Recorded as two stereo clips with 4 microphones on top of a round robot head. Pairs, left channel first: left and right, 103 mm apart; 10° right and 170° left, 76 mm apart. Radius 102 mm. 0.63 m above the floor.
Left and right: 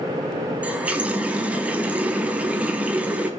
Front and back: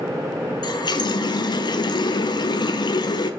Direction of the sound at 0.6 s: 15° right.